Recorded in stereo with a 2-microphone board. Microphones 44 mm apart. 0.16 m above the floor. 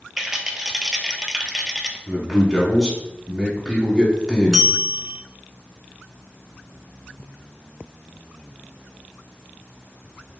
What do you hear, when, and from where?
0.2 s a rattle: 10° right (ahead or behind), 0.7 m
2.1 s a man speaking: 5° left (ahead or behind), 1.1 m
4.5 s a bell: 15° right (ahead or behind), 0.7 m